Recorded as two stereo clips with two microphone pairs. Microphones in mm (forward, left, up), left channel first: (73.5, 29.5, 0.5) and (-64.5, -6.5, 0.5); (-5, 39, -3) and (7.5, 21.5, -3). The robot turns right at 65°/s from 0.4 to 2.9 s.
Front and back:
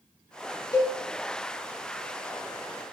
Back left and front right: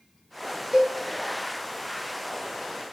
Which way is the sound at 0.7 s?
35° right.